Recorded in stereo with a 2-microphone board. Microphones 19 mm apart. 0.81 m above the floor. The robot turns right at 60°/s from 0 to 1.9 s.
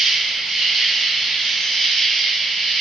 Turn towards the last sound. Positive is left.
turn(degrees=55)